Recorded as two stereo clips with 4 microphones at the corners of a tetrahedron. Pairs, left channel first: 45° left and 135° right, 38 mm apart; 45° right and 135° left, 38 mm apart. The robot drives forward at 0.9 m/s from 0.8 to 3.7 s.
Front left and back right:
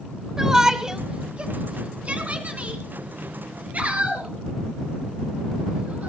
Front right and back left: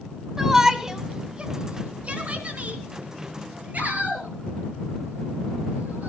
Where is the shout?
175° right, 1.1 m; by 6.1 s straight behind, 3 m.